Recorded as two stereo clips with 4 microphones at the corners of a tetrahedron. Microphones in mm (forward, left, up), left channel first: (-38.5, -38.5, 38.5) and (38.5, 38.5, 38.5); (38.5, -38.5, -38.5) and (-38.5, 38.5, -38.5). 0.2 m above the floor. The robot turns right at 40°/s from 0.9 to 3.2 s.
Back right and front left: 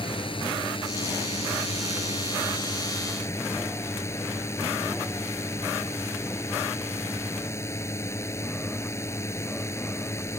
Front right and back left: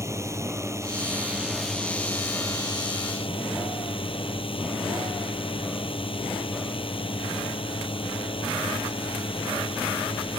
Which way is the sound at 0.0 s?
165° right.